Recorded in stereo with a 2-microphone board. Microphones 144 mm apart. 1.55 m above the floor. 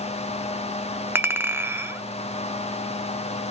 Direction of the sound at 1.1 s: 15° right (ahead or behind).